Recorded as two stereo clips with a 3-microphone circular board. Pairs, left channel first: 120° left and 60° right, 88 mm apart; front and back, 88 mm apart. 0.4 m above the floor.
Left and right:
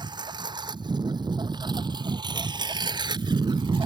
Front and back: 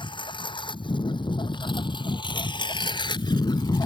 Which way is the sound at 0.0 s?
25° right.